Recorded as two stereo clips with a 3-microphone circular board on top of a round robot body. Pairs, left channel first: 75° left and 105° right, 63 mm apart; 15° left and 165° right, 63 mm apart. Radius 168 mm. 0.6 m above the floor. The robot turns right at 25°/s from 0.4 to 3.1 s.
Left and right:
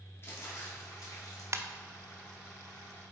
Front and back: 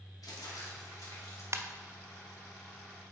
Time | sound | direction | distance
0.2 | crumpling | 30° left | 2.5 m
1.5 | a ringtone | 135° right | 0.7 m